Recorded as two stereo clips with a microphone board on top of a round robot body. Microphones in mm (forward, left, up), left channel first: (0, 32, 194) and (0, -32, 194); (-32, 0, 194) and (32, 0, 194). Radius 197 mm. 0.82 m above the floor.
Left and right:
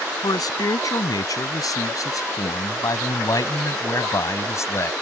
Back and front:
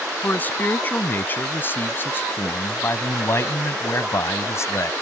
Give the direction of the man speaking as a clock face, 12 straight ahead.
8 o'clock.